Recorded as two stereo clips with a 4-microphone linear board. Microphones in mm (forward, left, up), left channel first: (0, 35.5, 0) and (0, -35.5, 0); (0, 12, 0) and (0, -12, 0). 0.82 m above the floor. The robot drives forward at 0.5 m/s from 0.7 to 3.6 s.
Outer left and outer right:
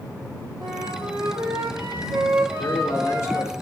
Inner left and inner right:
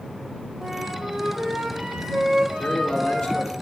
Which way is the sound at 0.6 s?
70° right (ahead or behind).